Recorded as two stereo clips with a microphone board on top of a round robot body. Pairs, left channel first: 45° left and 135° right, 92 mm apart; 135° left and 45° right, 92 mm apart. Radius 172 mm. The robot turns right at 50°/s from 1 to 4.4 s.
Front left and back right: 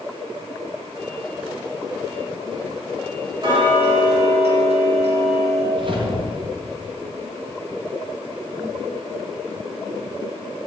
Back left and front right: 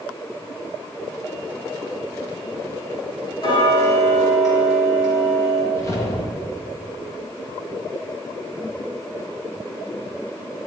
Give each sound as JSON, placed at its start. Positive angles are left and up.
{"t": 3.4, "sound": "ticking", "azimuth_deg": 175, "distance_m": 3.0}
{"t": 5.7, "sound": "a whoosh", "azimuth_deg": -165, "distance_m": 2.0}